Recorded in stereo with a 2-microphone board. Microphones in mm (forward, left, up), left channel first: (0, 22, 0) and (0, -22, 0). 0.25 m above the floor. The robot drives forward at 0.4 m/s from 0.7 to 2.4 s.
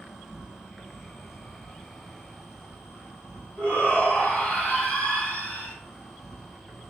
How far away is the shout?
About 1.9 m.